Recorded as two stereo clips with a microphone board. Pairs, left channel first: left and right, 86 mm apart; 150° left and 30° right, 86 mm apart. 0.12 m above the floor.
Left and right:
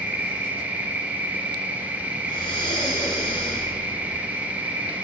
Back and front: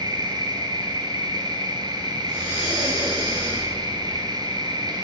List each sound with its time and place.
0.0 s an insect: 25° right, 1.2 m
2.2 s breathing: 50° left, 3 m